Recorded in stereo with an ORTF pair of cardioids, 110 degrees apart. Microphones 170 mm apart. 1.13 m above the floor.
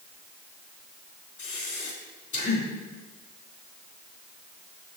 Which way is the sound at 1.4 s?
50° left.